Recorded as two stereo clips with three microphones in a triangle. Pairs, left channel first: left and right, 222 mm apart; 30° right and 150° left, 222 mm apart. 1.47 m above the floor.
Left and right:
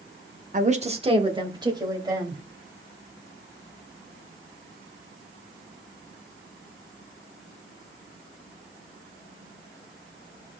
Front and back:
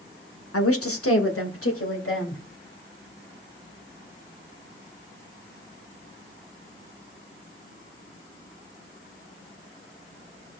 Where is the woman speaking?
35° right, 1.2 m; by 2.4 s 15° right, 3.5 m.